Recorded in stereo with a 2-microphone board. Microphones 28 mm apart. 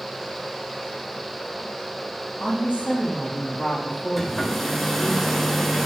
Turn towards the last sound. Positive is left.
turn(degrees=5)  # may be behind; listen again after turning